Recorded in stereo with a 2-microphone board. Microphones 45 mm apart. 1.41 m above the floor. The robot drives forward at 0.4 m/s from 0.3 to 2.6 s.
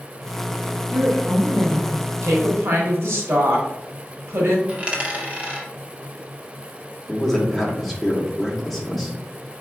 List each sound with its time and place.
0.9 s a woman speaking: 85° right, 1.6 m; by 2.0 s 70° right (ahead or behind), 1.7 m
2.2 s a woman speaking: 80° right, 1.3 m
4.7 s a dropped coin: 25° right (ahead or behind), 1.0 m
7.1 s a man speaking: 5° left (ahead or behind), 1.1 m